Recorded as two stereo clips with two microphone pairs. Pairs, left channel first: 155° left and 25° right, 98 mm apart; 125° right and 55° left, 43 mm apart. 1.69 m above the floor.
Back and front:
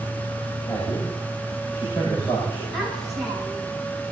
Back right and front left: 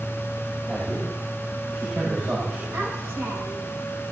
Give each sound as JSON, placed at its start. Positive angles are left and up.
{"t": 0.7, "sound": "a man speaking", "azimuth_deg": 105, "distance_m": 9.0}
{"t": 2.7, "sound": "a child speaking", "azimuth_deg": 65, "distance_m": 9.5}